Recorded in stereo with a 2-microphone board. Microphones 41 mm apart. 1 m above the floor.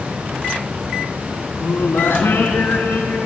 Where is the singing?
85° left, 5.5 m.